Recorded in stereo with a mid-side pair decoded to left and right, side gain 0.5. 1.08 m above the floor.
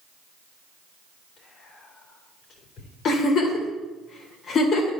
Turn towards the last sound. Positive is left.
turn(degrees=55)